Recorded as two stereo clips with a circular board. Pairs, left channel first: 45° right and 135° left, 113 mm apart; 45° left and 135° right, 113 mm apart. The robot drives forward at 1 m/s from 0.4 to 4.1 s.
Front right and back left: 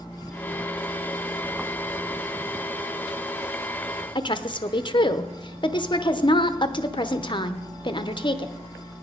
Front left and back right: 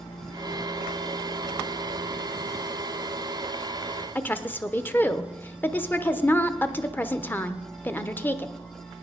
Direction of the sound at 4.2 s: 20° right.